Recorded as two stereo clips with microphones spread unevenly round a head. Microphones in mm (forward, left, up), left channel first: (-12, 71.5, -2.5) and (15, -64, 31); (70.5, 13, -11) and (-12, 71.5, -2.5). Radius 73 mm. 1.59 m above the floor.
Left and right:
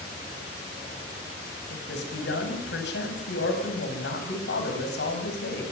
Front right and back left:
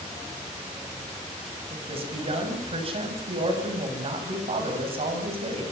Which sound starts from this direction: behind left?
A man speaking, at 1.7 s.